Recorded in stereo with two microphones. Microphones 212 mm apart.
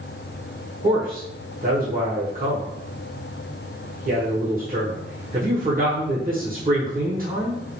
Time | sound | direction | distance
0.8 | a man speaking | 40° right (ahead or behind) | 1.0 m